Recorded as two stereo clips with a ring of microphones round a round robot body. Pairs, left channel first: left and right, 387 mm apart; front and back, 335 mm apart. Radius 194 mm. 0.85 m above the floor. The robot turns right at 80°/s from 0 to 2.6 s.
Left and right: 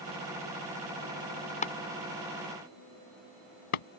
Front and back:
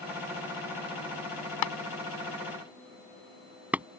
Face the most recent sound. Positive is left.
turn(degrees=95)